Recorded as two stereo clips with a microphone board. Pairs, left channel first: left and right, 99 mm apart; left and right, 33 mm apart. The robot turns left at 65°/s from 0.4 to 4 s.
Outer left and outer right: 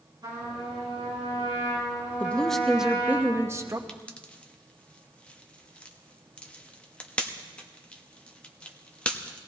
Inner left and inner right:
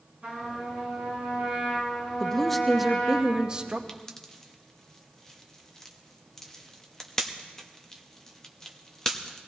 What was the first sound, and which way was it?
A trumpet, 50° right.